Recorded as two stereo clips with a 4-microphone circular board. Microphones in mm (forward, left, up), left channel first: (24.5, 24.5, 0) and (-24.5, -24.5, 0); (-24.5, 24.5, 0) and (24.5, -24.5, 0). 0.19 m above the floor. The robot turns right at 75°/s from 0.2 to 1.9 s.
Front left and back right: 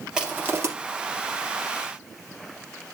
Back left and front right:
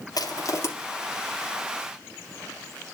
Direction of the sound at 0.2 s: 145° left.